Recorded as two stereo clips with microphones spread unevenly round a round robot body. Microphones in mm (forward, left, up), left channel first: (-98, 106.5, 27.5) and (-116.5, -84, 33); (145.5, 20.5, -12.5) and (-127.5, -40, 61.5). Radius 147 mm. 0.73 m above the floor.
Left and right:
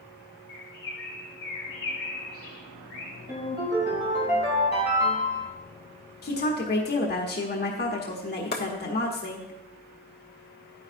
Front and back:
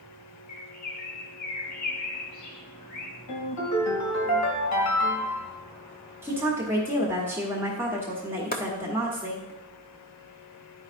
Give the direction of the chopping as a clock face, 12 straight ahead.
10 o'clock.